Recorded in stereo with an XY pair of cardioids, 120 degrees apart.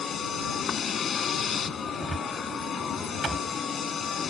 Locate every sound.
0.0 s a vehicle: 35° left
2.0 s a cupboard door: 20° right